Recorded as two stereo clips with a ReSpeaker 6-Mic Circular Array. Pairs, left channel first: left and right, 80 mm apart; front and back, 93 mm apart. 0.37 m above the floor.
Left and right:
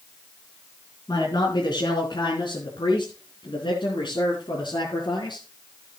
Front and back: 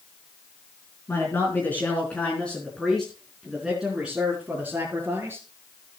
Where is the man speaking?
60° left, 4 m; by 5.5 s 110° left, 4.5 m.